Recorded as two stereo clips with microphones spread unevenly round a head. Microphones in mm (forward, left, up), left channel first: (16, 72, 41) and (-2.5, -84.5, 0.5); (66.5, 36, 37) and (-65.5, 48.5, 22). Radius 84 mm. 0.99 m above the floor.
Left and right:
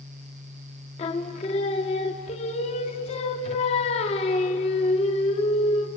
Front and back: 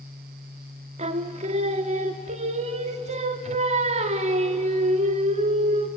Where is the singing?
135° left, 1.1 m.